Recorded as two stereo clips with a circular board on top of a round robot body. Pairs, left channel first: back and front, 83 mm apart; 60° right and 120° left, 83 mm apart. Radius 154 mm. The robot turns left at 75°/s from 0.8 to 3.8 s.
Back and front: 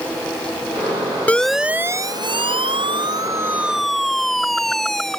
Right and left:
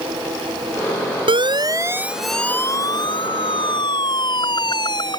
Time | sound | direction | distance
1.3 | a siren | 105° left | ?